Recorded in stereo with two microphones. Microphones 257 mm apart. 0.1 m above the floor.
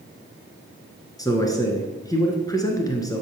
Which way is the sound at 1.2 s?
15° left (ahead or behind).